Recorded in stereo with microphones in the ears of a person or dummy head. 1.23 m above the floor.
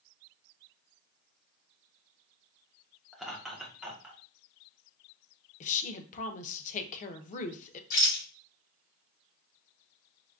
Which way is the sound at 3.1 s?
Centre (ahead or behind).